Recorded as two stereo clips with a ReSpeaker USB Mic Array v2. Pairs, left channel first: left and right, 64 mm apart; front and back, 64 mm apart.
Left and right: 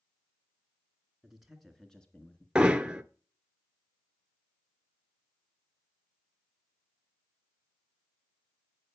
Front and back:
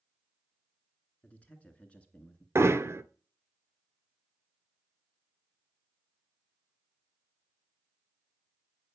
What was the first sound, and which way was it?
A man speaking, 20° right.